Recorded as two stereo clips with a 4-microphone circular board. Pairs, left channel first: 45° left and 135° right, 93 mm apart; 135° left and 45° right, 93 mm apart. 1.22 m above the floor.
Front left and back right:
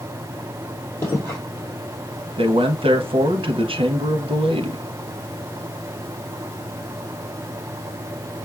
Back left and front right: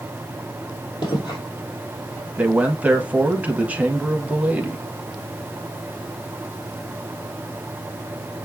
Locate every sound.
1.0 s footsteps: 105° left, 2.5 m
2.4 s a man speaking: 120° right, 0.7 m